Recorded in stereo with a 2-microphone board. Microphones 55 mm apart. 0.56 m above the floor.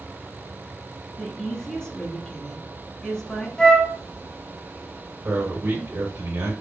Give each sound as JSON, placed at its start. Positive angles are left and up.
{"t": 1.2, "sound": "a woman speaking", "side_deg": 15, "distance_m": 0.9}
{"t": 3.6, "sound": "a flute", "side_deg": 15, "distance_m": 0.7}
{"t": 5.2, "sound": "a man speaking", "side_deg": -60, "distance_m": 1.8}